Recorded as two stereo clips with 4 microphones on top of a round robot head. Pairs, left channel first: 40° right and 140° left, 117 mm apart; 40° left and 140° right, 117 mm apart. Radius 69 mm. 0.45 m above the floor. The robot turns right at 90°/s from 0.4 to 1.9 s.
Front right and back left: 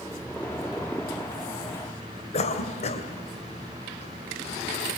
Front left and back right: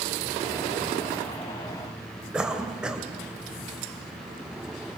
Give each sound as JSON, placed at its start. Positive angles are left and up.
{"t": 2.3, "sound": "a cough", "azimuth_deg": -55, "distance_m": 2.5}